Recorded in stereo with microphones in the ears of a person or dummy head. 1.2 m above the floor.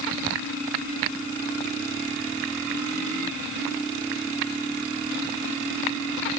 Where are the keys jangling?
I don't hear keys jangling.